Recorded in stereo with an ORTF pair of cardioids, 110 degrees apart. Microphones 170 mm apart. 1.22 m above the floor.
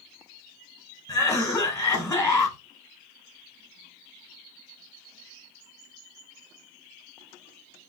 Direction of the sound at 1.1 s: 10° left.